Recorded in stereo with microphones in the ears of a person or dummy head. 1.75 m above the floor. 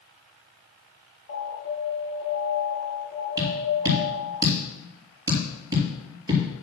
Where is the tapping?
20° right (ahead or behind), 5 m.